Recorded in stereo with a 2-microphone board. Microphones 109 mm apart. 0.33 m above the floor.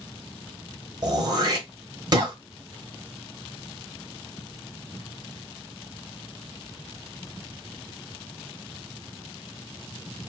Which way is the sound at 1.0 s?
40° right (ahead or behind).